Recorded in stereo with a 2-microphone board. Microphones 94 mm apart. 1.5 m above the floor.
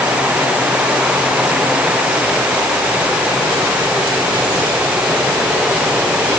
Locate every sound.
Only background noise.